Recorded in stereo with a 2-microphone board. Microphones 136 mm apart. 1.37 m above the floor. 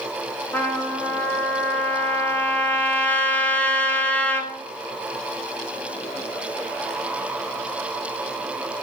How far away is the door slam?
No door slam in this recording.